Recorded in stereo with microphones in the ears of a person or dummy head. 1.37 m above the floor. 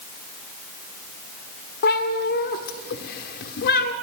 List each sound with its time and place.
1.8 s a cat meowing: 60° left (ahead or behind), 1.5 m